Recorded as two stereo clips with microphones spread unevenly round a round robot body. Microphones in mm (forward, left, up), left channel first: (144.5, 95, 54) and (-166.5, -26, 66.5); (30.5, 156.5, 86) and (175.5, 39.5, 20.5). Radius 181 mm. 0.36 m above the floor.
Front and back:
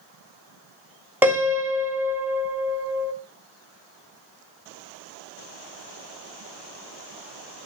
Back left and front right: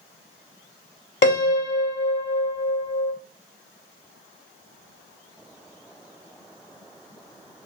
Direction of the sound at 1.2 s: 115° left.